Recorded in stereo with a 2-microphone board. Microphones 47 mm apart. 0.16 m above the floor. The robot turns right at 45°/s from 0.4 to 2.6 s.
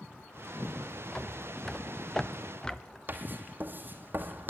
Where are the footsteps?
20° left (ahead or behind), 0.8 m; by 3.0 s 10° left (ahead or behind), 1.4 m.